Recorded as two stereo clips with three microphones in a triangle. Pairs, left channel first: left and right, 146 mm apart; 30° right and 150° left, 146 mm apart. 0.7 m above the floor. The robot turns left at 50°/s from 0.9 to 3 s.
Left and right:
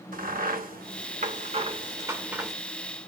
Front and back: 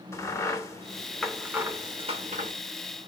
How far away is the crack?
About 0.9 m.